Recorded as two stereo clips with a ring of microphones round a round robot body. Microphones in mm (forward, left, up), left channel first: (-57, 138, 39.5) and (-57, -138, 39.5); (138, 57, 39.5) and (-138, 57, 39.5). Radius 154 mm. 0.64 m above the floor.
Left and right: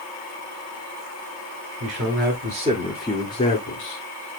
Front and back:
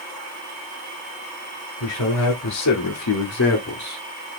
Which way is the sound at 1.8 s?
45° right.